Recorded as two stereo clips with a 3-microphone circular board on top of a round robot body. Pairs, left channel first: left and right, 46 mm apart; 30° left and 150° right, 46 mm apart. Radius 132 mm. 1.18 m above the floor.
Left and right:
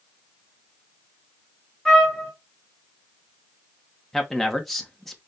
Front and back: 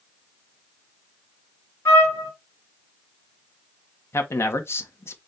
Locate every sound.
1.9 s a trumpet: 5° left, 2.5 m
4.1 s a man speaking: 5° left, 1.2 m